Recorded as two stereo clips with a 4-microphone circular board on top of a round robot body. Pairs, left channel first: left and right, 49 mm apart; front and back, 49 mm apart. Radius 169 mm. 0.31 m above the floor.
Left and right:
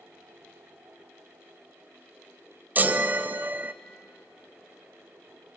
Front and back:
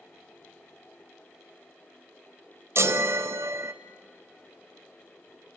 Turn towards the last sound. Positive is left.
turn(degrees=-145)